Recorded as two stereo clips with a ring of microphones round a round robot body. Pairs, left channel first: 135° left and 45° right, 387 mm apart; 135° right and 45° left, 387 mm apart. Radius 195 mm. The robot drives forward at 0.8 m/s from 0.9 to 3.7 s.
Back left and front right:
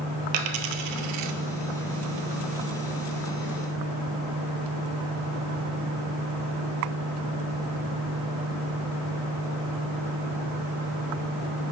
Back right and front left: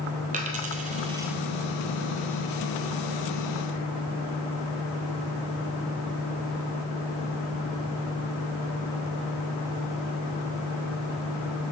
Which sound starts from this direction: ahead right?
A dropped coin, at 0.3 s.